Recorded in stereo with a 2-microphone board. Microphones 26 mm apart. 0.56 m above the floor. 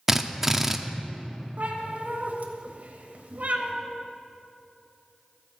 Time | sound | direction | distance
0.1 | a drill | 15° right (ahead or behind) | 0.5 m
1.6 | a cat meowing | 80° right | 1.2 m